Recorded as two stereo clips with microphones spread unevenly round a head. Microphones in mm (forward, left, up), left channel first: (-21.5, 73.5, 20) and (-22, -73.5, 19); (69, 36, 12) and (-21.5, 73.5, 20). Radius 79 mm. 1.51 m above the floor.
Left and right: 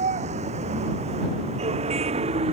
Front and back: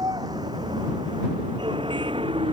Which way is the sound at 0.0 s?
135° right.